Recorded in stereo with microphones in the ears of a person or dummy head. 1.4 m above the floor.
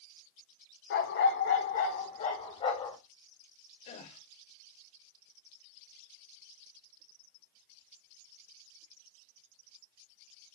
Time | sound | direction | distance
0.9 | a dog barking | 60° left (ahead or behind) | 1.7 m
3.9 | a gasp | 45° left (ahead or behind) | 2.5 m